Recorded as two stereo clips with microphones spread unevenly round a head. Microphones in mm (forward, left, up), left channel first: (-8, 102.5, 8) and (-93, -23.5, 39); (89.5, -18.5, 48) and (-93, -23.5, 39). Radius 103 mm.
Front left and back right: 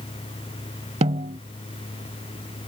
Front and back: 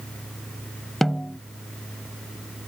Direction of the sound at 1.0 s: 85° right.